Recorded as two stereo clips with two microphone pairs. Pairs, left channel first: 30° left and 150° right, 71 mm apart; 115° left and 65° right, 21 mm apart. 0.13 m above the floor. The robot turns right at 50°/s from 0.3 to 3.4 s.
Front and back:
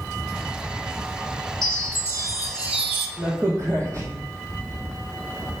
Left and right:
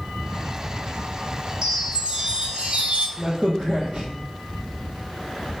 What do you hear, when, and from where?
1.6 s a chime: 130° right, 1.2 m; by 3.1 s 55° right, 1.2 m
3.2 s a crack: 120° right, 1.8 m; by 5.6 s 110° right, 1.8 m